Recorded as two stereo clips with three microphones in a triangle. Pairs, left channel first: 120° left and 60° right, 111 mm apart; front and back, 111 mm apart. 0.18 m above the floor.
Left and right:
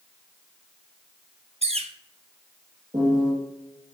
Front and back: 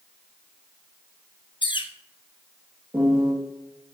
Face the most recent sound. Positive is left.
turn(degrees=-105)